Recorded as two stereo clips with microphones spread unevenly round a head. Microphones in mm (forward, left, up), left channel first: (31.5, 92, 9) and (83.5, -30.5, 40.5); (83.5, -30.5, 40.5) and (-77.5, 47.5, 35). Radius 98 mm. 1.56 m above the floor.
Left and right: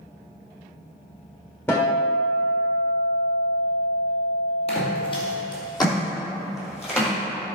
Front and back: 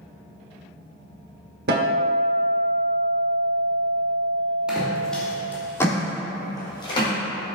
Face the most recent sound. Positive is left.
turn(degrees=35)